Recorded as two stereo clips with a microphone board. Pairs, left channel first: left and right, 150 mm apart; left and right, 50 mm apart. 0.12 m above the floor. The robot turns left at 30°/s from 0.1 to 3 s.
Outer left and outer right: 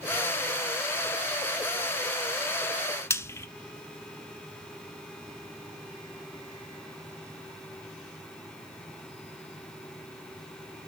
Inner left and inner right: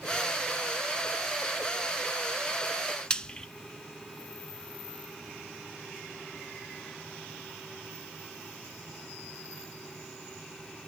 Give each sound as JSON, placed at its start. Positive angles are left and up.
{"t": 3.1, "sound": "frying", "side_deg": 20, "distance_m": 0.6}